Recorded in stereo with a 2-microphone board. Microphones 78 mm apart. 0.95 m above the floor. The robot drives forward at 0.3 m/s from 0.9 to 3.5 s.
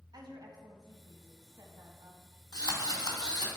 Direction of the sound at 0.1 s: 55° right (ahead or behind).